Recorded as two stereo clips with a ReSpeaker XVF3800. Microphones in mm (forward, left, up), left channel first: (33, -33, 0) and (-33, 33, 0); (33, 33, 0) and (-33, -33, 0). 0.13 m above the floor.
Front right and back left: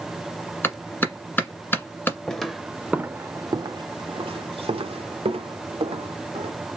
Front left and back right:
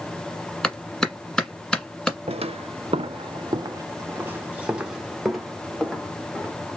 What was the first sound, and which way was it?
A clap, 25° right.